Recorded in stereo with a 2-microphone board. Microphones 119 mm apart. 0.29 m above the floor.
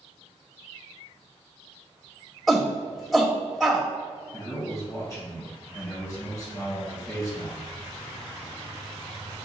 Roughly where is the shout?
Centre.